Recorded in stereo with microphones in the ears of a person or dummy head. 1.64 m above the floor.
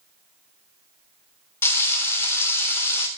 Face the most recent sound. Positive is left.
turn(degrees=5)  # may be behind; listen again after turning